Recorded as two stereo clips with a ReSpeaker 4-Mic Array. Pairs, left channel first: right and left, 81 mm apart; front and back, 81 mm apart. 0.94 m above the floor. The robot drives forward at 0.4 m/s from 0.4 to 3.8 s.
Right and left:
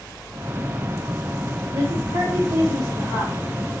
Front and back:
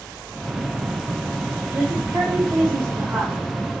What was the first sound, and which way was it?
A woman speaking, 110° left.